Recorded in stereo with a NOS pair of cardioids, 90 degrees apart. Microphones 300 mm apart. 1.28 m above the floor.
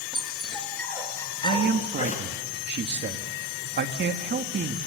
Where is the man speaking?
35° right, 2.5 m.